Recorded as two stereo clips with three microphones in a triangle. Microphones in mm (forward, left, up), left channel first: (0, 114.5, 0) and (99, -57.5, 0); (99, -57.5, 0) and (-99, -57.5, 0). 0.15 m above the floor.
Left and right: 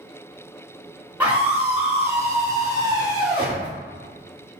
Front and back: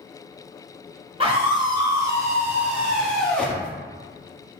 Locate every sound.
1.2 s a scream: 140° right, 2 m; by 3.7 s 65° right, 1.7 m